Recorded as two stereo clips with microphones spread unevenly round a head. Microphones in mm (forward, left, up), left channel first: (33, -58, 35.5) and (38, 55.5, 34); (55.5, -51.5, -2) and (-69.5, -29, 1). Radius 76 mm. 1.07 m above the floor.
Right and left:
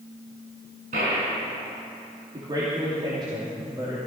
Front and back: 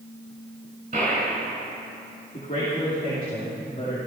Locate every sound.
0.9 s a gunshot: 120° left, 5.5 m
2.3 s a man speaking: 35° left, 3 m